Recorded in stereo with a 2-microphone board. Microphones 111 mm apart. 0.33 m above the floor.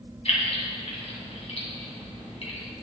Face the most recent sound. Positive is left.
turn(degrees=65)  # may be behind; listen again after turning